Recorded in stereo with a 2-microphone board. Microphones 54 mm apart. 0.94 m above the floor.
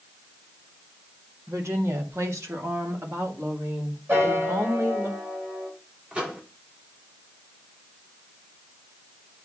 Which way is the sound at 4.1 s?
40° right (ahead or behind).